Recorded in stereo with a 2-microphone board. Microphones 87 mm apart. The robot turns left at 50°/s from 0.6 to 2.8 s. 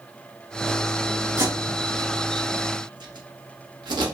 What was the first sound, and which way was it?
Tape being pulled, 30° right (ahead or behind).